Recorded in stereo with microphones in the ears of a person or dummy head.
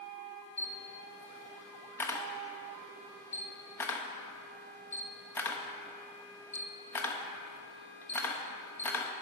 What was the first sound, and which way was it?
A camera shutter, 10° left (ahead or behind).